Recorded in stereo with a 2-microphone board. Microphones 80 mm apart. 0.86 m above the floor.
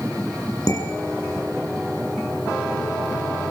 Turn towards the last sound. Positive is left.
turn(degrees=45)  # may be behind; listen again after turning